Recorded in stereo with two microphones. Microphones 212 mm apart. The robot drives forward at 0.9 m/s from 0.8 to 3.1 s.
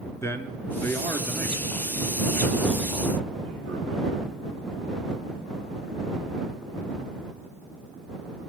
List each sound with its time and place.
0.2 s a man speaking: 10° left (ahead or behind), 1.2 m; by 4.1 s 5° left (ahead or behind), 3 m